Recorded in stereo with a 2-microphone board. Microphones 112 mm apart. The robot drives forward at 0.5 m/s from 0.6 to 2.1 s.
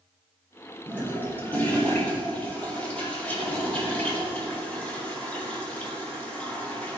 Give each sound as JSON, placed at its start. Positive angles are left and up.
{"t": 0.9, "sound": "a toilet flushing", "side_deg": 20, "distance_m": 1.6}